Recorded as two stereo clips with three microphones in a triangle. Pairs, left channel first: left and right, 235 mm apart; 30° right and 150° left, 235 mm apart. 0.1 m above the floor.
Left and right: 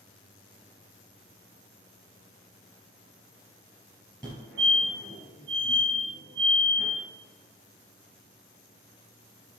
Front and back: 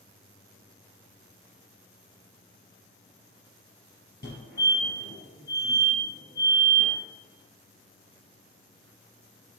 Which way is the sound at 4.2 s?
5° left.